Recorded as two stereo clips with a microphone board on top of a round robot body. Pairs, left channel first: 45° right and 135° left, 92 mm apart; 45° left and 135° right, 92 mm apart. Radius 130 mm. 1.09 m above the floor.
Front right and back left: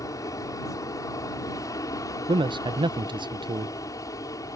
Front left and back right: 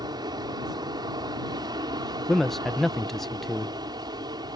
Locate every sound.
0.0 s an aircraft: 95° right
2.3 s a man speaking: 130° left